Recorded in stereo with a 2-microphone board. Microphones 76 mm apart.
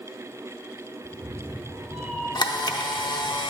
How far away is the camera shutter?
About 0.6 m.